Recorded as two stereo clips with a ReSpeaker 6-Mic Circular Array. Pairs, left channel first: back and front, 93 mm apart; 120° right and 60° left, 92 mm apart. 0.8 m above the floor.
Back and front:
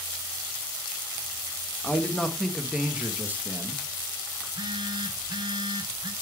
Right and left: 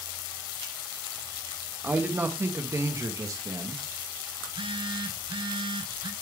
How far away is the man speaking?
About 1.1 m.